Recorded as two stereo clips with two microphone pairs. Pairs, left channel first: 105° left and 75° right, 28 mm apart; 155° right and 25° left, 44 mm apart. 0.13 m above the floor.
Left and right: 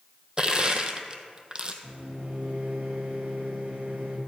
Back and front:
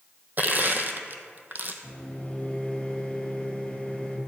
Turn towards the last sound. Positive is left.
turn(degrees=-95)